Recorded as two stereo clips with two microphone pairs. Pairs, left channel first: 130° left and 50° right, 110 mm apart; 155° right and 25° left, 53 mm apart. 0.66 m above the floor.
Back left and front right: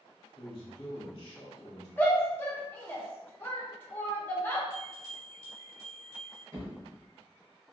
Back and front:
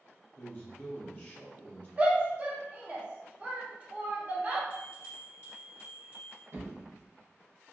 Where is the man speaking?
155° left, 0.9 m.